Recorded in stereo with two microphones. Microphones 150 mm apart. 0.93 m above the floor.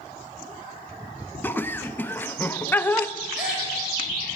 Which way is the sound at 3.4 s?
5° right (ahead or behind).